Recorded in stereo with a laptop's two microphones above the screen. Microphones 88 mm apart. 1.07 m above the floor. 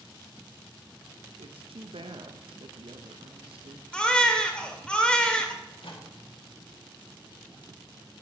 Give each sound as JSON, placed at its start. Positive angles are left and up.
{"t": 1.4, "sound": "a woman speaking", "side_deg": -80, "distance_m": 0.7}
{"t": 3.9, "sound": "a baby crying", "side_deg": 10, "distance_m": 1.7}
{"t": 5.6, "sound": "a microwave", "side_deg": 75, "distance_m": 2.0}